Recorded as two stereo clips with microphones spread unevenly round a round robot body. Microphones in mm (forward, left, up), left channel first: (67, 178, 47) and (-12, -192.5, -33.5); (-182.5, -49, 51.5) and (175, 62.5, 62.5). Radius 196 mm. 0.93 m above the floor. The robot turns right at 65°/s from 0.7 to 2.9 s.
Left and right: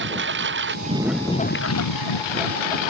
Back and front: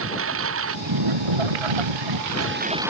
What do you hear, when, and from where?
0.0 s a lawn mower: 40° right; by 2.9 s 105° left